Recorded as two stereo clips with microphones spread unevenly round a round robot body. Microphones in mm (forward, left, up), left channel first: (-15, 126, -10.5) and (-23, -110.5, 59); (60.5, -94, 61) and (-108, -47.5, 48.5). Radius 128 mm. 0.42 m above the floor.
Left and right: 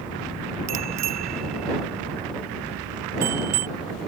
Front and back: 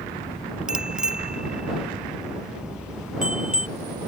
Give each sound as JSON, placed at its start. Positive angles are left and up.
{"t": 0.7, "sound": "a bicycle bell", "azimuth_deg": -110}